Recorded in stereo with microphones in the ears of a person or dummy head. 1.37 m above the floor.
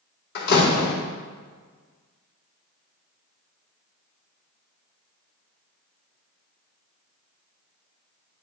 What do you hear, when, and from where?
0.3 s a door slam: 60° left (ahead or behind), 1.7 m